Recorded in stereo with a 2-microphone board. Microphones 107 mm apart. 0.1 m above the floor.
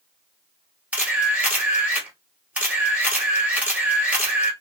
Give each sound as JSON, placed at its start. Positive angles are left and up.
{"t": 0.9, "sound": "a camera shutter", "side_deg": -10, "distance_m": 1.4}